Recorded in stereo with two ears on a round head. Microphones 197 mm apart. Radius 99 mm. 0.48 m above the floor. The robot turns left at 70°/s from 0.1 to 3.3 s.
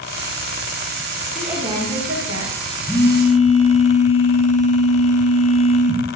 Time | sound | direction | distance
1.4 | a woman speaking | straight ahead | 7 m
2.9 | a phone buzzing | straight behind | 5 m